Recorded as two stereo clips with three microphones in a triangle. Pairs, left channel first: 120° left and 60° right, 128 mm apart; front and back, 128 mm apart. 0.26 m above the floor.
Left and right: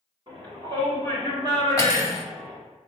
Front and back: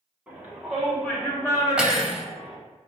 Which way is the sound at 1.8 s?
105° left.